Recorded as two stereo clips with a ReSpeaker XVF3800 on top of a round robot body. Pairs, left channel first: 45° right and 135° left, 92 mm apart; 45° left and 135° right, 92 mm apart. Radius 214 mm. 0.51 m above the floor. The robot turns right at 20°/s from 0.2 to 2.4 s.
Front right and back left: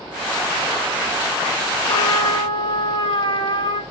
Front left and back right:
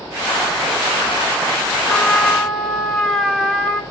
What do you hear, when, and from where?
1.9 s a trumpet: 50° right, 1.9 m; by 3.8 s 40° right, 1.9 m